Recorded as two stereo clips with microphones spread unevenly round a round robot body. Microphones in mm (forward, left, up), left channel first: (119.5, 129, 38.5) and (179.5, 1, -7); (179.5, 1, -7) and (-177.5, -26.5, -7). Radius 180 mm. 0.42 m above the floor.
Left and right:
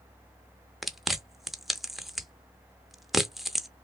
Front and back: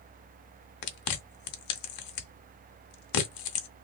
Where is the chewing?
15° left, 0.7 m.